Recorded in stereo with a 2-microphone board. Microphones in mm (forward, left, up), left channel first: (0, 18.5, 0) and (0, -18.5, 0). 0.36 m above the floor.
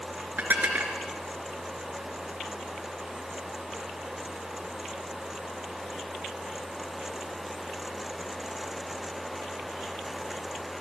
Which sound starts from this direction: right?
Dishes clattering, at 0.4 s.